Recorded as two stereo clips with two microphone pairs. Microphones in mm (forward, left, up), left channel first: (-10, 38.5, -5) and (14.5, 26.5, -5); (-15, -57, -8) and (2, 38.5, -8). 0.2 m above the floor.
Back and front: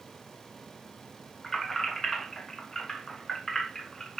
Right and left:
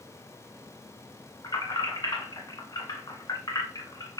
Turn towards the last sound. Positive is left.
turn(degrees=-135)